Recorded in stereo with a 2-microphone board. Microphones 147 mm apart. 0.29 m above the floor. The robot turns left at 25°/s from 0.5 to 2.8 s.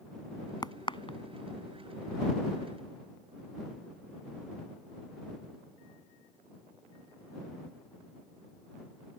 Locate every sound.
0.6 s a crack: 30° left (ahead or behind); by 1.2 s 40° left (ahead or behind)